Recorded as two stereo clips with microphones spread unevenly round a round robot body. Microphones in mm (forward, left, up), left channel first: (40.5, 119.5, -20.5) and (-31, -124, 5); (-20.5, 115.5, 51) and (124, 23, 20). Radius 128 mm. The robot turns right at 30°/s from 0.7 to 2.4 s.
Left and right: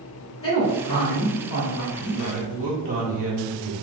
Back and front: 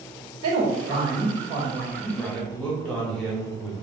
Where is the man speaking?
120° right, 1.1 m; by 3.7 s 110° right, 1.1 m.